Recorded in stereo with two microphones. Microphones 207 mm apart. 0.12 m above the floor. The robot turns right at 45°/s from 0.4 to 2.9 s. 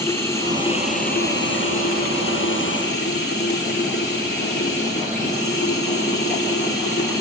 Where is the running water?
15° left, 2 m; by 7.2 s 125° left, 2 m.